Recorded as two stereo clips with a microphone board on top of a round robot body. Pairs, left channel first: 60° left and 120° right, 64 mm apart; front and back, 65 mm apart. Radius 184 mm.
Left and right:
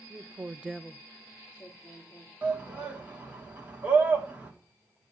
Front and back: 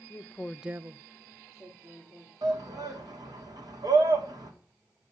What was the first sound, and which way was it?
A woman speaking, 55° right.